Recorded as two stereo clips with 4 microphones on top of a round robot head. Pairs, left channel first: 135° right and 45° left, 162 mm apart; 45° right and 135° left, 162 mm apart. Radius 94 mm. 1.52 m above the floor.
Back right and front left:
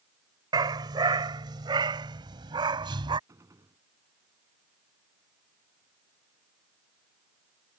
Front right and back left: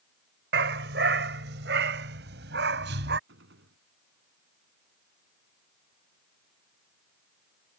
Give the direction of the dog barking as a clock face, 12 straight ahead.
8 o'clock.